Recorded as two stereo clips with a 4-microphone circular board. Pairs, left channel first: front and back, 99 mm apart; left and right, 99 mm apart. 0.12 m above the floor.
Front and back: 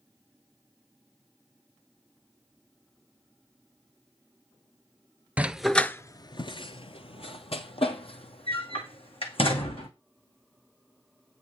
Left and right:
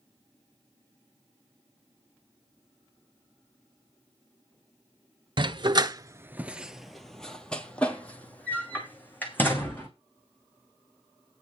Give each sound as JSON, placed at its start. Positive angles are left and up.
{"t": 5.4, "sound": "a dog barking", "azimuth_deg": -110, "distance_m": 0.6}